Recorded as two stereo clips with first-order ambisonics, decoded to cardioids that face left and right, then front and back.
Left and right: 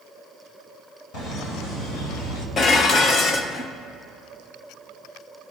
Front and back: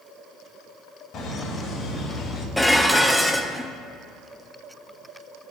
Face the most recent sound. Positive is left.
turn(degrees=85)